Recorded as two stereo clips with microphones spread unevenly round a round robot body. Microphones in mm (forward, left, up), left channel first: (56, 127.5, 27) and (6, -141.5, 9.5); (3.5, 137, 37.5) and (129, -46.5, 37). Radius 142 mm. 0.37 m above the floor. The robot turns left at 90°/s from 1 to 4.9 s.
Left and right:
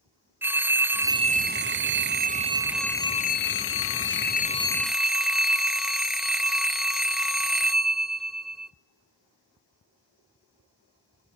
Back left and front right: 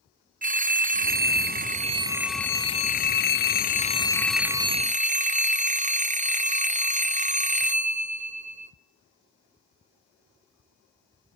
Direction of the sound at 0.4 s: 25° right.